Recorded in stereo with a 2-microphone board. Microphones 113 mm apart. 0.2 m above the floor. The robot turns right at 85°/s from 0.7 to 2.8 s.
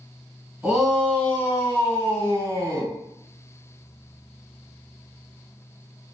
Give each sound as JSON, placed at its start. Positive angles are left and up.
{"t": 0.6, "sound": "a shout", "side_deg": -5, "distance_m": 1.2}